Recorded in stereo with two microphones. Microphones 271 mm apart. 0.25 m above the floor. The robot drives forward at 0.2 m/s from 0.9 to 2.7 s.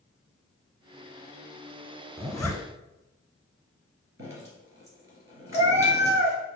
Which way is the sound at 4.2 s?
50° right (ahead or behind).